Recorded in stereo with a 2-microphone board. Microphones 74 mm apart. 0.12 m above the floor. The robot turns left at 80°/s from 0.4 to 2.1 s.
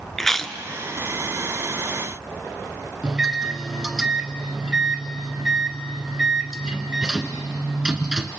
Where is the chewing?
5° left (ahead or behind), 0.8 m; by 0.6 s 10° left (ahead or behind), 0.8 m.